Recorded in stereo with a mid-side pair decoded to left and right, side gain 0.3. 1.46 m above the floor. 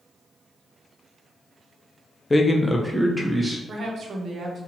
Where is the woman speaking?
70° right, 0.8 m.